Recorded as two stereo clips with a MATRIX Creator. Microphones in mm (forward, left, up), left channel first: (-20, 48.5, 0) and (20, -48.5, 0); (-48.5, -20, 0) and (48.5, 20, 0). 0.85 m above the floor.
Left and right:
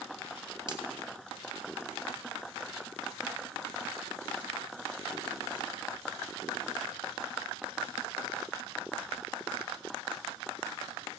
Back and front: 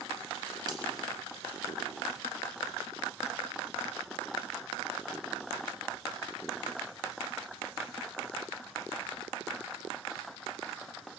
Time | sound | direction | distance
0.7 | a finger snap | 25° right | 3.5 m